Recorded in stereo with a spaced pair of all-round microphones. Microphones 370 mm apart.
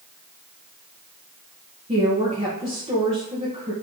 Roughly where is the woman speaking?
Centre.